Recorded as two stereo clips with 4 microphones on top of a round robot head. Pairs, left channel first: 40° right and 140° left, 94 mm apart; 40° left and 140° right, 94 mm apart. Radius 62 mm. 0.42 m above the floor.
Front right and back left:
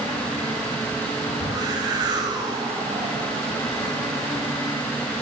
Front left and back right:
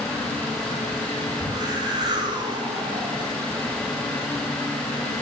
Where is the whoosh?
Straight behind, 2.5 m.